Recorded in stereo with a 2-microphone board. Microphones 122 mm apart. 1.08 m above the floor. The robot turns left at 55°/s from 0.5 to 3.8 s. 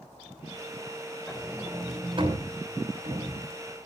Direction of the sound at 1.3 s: 5° left (ahead or behind).